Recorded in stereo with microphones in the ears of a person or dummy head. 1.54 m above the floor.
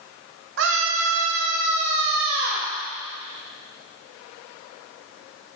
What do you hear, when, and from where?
0.6 s a scream: 65° right (ahead or behind), 1.8 m; by 2.7 s 55° right (ahead or behind), 2 m